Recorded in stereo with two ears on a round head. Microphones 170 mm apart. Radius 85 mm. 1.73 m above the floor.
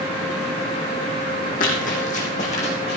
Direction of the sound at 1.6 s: 45° left (ahead or behind).